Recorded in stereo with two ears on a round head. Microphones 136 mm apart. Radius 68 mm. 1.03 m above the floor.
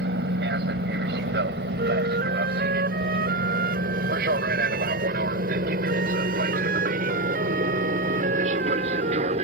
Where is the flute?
65° right (ahead or behind).